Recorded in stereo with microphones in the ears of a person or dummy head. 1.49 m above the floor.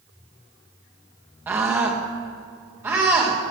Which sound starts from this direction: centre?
A scream, at 1.5 s.